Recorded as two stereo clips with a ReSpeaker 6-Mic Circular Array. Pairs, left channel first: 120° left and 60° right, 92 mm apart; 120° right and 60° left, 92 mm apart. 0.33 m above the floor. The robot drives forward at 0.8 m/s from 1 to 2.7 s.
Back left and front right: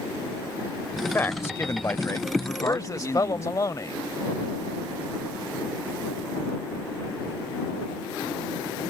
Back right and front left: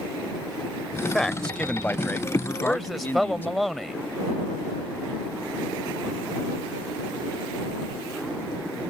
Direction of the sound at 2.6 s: 145° left.